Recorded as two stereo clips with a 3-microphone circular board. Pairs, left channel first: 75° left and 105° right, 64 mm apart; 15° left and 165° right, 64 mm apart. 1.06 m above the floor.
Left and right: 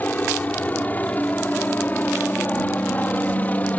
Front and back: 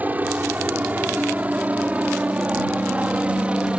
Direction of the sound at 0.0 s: 135° left.